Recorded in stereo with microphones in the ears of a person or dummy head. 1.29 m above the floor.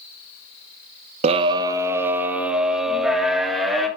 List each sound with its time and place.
1.2 s a scream: 40° right (ahead or behind), 0.7 m; by 3.9 s centre (ahead or behind), 3 m